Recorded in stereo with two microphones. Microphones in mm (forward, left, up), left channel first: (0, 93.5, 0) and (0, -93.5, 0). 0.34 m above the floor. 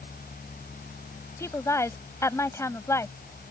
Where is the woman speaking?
15° left (ahead or behind).